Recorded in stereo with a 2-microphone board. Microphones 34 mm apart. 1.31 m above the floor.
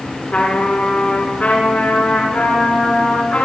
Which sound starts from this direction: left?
A trumpet, at 0.3 s.